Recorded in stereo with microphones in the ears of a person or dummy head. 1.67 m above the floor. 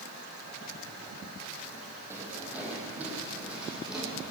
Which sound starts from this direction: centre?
Footsteps, at 2.1 s.